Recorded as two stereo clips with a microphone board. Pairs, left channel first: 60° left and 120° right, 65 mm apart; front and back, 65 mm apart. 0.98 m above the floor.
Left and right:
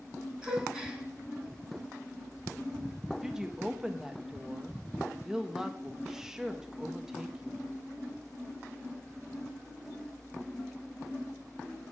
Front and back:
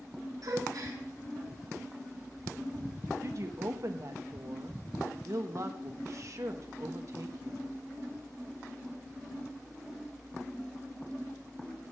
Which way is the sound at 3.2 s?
160° left.